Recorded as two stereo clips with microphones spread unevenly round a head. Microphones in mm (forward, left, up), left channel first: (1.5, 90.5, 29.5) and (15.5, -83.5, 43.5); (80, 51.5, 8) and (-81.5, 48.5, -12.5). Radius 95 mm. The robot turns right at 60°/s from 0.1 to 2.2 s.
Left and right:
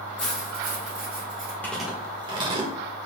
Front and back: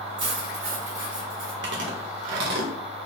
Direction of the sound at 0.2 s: Straight behind.